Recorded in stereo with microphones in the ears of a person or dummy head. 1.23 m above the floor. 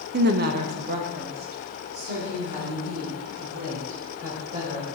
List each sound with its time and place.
0.1 s a woman speaking: 50° right (ahead or behind), 0.6 m; by 4.8 s 45° right (ahead or behind), 5.5 m